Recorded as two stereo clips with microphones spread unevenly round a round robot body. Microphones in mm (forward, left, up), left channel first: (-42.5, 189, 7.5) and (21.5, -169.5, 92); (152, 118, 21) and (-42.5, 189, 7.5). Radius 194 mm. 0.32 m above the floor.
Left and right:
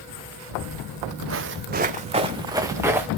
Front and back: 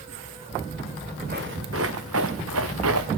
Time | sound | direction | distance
0.5 | footsteps | 95° right | 0.9 m